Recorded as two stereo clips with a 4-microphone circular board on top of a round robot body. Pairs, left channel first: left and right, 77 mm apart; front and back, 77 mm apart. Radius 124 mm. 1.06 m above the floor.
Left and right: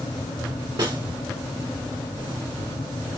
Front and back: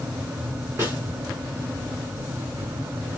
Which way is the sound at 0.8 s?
120° right.